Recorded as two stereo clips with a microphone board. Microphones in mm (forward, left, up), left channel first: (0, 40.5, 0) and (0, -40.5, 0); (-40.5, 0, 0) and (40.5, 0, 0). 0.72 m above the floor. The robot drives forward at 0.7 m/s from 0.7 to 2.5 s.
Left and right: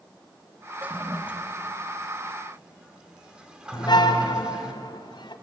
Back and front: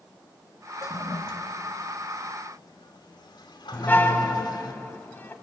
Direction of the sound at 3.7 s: 110° left.